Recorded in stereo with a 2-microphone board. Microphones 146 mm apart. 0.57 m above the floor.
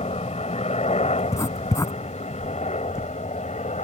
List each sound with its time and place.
0.0 s a helicopter: 45° left (ahead or behind); by 3.9 s 50° left (ahead or behind)
1.2 s writing: 20° left (ahead or behind)